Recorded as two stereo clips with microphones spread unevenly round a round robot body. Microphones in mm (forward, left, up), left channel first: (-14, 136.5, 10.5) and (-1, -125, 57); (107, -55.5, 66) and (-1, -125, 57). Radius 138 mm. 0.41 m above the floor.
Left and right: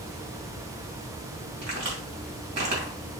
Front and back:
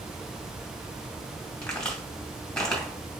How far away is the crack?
About 2.5 m.